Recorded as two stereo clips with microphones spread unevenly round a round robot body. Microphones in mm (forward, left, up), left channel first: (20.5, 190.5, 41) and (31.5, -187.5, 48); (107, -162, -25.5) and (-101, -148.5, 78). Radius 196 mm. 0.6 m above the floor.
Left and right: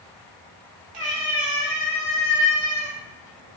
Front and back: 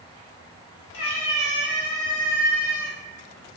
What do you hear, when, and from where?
0.9 s a cat meowing: 20° right, 1.1 m; by 3.0 s 75° left, 1.2 m